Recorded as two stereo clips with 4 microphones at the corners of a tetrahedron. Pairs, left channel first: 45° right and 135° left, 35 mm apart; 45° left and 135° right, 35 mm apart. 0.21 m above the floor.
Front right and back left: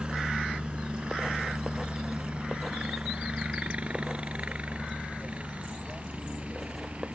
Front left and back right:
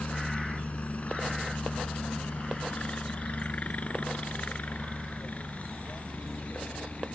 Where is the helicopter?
80° left; by 7.2 s 85° left.